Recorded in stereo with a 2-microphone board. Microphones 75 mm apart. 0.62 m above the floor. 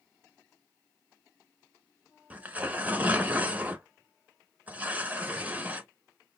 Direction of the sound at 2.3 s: 20° right (ahead or behind).